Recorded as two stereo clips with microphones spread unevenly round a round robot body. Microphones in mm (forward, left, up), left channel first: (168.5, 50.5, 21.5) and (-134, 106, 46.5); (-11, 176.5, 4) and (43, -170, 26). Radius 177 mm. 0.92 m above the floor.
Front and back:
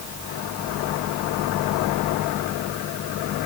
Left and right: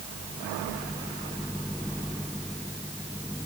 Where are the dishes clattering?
I don't hear dishes clattering.